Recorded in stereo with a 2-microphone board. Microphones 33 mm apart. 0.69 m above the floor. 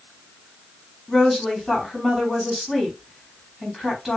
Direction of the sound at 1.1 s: Centre (ahead or behind).